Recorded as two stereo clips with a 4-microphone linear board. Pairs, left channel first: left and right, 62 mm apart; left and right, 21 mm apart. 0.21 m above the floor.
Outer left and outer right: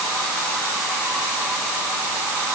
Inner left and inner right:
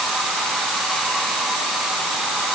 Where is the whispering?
I don't hear whispering.